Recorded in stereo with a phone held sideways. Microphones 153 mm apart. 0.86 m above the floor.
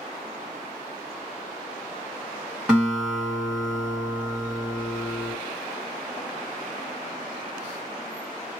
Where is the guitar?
5° right (ahead or behind), 1.5 m.